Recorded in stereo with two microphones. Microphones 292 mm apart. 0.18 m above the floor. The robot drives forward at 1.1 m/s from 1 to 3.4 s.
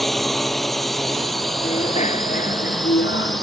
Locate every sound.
0.0 s a drone: centre (ahead or behind)
1.6 s a bicycle bell: 20° left (ahead or behind); by 3.4 s 45° left (ahead or behind)